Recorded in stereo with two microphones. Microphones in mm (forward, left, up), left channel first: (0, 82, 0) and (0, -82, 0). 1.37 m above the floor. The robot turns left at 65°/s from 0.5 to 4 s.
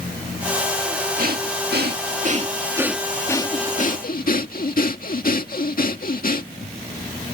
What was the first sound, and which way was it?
Breathing, 60° right.